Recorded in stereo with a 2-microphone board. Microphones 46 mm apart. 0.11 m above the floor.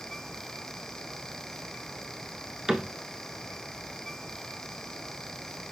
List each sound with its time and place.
2.7 s a cupboard door: 10° right (ahead or behind), 0.8 m